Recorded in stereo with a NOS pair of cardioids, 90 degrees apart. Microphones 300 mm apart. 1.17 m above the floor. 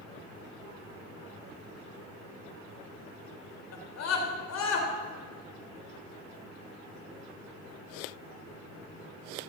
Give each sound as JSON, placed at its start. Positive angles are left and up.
{"t": 3.7, "sound": "a scream", "azimuth_deg": 60, "distance_m": 3.5}